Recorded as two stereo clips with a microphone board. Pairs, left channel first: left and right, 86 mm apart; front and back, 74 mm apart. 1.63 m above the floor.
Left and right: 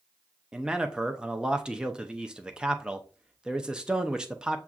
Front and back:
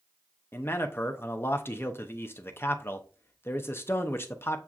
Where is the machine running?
I don't hear a machine running.